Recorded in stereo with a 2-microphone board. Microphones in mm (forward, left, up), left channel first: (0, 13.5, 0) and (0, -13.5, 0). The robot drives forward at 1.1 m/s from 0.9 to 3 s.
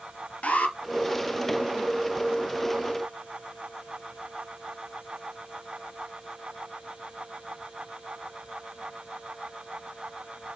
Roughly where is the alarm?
Left.